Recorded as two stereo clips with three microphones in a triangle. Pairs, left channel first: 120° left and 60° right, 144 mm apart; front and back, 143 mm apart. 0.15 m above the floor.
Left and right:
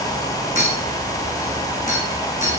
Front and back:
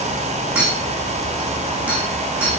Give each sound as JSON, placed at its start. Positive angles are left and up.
{"t": 0.6, "sound": "a clink", "azimuth_deg": -100, "distance_m": 5.0}